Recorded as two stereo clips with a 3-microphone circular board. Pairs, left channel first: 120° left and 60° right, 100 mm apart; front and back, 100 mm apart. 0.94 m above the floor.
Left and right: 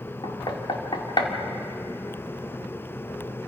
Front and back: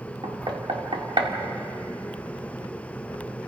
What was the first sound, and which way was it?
Knocking, 155° left.